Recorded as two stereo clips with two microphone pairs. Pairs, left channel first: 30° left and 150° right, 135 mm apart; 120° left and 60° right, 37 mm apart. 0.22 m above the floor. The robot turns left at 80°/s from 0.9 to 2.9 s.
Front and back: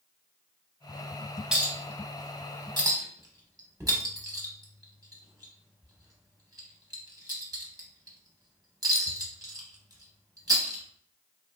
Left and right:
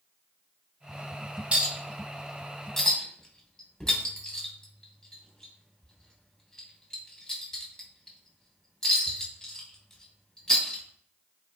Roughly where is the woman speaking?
I don't hear a woman speaking.